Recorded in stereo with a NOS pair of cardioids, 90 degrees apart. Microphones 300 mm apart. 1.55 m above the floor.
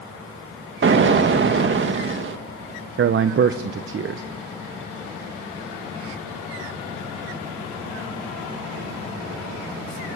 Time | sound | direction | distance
0.8 | an explosion | 40° right | 2 m
3.0 | a man speaking | 45° right | 1.0 m